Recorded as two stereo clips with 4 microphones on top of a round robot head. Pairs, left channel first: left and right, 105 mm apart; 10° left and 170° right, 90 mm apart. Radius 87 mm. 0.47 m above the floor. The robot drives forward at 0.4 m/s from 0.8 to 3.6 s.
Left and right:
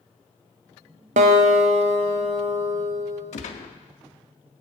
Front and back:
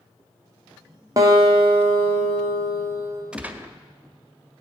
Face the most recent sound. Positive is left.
turn(degrees=120)